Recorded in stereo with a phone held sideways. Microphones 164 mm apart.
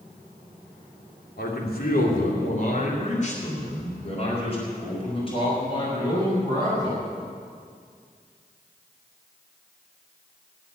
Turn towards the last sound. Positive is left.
turn(degrees=25)  # may be behind; listen again after turning